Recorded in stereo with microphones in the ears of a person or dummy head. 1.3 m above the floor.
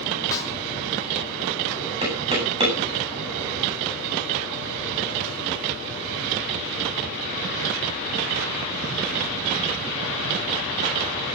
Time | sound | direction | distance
0.3 | a snare drum | 20° left (ahead or behind) | 3 m
2.0 | knocking | 25° right (ahead or behind) | 9.5 m